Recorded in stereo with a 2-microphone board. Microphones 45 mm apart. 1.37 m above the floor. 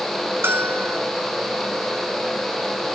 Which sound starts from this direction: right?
A bell, at 0.4 s.